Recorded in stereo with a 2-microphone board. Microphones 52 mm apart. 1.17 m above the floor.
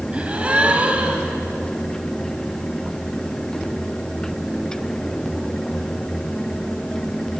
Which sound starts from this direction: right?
A gasp, at 0.1 s.